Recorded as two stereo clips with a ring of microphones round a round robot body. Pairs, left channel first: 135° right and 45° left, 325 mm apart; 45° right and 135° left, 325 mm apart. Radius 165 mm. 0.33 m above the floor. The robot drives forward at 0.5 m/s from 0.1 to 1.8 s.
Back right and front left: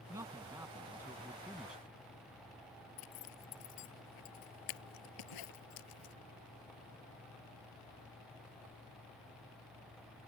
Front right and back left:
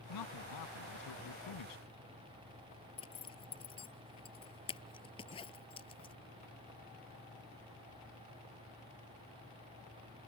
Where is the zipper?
120° right.